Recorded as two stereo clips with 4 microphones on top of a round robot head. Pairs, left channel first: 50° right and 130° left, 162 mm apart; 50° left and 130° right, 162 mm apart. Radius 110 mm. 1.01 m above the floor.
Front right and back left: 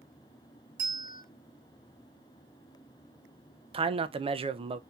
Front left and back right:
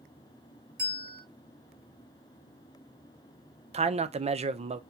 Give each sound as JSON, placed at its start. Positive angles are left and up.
{"t": 0.8, "sound": "a bell", "azimuth_deg": -150, "distance_m": 2.5}
{"t": 3.7, "sound": "a man speaking", "azimuth_deg": -175, "distance_m": 0.6}